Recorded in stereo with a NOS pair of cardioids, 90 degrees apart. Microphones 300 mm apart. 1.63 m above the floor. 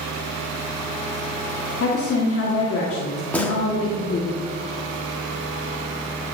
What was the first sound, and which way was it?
A woman speaking, 50° left.